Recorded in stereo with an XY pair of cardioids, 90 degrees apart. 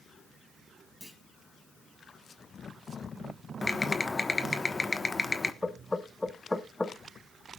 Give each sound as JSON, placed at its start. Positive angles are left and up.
{"t": 1.0, "sound": "a clunk", "azimuth_deg": 15, "distance_m": 5.0}
{"t": 3.6, "sound": "typing on a keyboard", "azimuth_deg": 25, "distance_m": 1.2}
{"t": 5.6, "sound": "knocking", "azimuth_deg": 20, "distance_m": 1.3}